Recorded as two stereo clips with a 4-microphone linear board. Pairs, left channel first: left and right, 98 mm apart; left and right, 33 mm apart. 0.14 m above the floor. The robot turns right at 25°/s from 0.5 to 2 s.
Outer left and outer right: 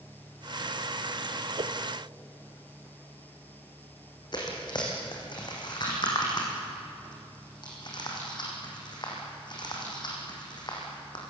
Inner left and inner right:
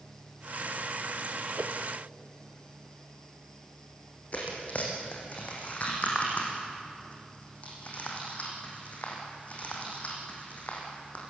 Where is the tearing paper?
50° left (ahead or behind), 5.5 m.